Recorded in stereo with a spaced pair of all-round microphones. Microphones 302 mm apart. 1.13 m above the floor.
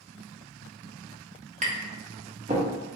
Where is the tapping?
25° right (ahead or behind), 0.7 m.